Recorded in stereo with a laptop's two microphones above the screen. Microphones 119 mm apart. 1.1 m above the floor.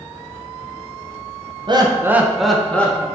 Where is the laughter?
40° right (ahead or behind), 0.6 m; by 3.0 s 15° left (ahead or behind), 1.1 m.